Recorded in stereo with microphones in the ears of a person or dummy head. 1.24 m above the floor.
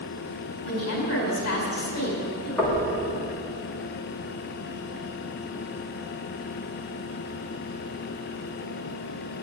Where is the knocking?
5° left (ahead or behind), 2.5 m.